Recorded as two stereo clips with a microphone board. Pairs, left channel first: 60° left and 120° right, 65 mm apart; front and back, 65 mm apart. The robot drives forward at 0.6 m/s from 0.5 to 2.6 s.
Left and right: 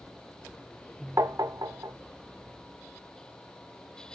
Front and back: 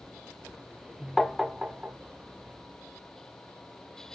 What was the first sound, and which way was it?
Tapping, 85° right.